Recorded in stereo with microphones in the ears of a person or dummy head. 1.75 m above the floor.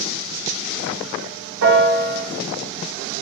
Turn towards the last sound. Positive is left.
turn(degrees=-70)  # may be behind; listen again after turning